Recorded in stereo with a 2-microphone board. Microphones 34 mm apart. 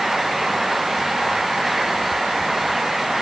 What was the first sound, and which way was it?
Only background noise.